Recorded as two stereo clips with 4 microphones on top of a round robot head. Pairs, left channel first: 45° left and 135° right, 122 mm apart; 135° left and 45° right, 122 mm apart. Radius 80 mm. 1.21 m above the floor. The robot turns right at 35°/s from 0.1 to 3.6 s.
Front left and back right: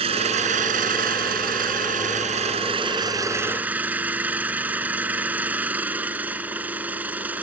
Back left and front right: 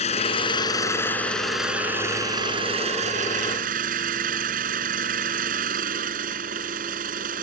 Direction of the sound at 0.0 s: Straight behind.